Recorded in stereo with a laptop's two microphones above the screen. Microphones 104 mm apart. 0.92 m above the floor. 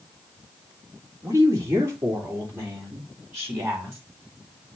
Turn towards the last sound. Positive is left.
turn(degrees=-25)  # may be behind; listen again after turning